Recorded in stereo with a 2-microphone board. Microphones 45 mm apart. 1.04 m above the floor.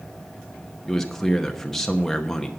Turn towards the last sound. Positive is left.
turn(degrees=10)  # may be behind; listen again after turning